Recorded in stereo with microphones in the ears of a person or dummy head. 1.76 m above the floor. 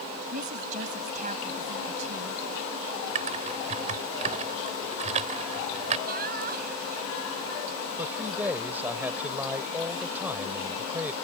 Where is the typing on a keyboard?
40° right (ahead or behind).